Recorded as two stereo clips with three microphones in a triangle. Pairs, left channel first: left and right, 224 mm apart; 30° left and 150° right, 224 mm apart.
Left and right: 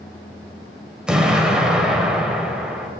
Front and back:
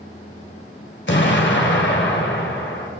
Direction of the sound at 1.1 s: 5° right.